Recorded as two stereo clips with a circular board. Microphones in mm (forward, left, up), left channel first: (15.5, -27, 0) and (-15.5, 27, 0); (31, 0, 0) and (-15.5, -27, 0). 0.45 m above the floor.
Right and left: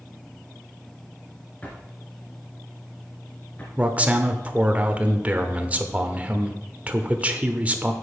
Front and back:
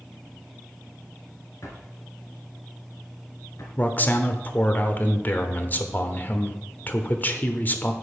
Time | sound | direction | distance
1.6 | a drawer | 5° left | 2.5 m
3.8 | a man speaking | 65° left | 1.0 m